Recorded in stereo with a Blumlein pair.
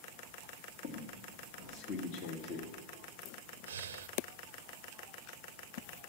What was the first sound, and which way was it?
A squeak, 40° left.